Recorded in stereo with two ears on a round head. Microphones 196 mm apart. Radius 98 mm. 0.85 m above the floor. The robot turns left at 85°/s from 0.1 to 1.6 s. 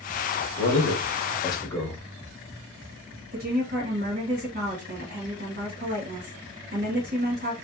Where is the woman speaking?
45° right (ahead or behind), 1.6 m.